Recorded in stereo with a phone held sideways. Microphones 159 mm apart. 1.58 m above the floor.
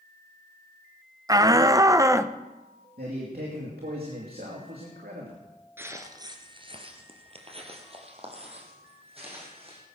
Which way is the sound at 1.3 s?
25° right (ahead or behind).